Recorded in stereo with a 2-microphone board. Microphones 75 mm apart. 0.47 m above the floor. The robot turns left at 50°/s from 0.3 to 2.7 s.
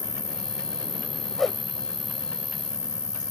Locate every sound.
0.0 s an insect: 90° right; by 3.3 s 150° left
1.4 s a whoosh: 5° left (ahead or behind); by 1.6 s 5° right (ahead or behind)